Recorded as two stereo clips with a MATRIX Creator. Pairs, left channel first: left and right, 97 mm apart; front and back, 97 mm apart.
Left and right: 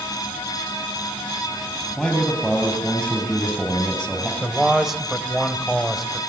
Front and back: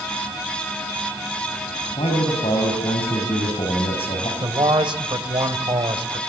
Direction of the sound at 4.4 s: Straight behind.